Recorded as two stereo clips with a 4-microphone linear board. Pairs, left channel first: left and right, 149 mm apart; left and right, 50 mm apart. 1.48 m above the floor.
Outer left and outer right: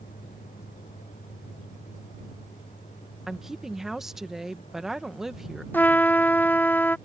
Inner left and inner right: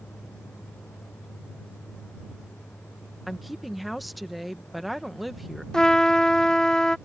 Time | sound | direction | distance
0.0 | a vehicle | 60° left (ahead or behind) | ?
3.3 | a woman speaking | centre (ahead or behind) | ?
5.7 | a trumpet | 15° left (ahead or behind) | ?